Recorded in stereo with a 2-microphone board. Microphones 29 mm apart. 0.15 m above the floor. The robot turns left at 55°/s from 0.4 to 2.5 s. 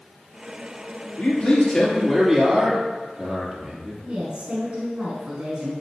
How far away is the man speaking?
About 3 m.